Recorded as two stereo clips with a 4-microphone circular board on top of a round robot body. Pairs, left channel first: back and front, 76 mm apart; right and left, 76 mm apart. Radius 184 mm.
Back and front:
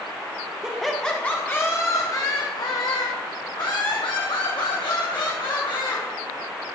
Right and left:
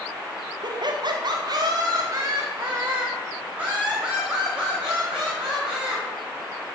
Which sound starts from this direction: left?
Laughter, at 0.6 s.